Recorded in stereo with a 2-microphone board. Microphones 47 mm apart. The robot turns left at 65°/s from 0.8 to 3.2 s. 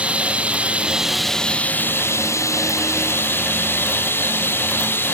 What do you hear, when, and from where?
0.0 s running water: 155° right; by 5.1 s 50° left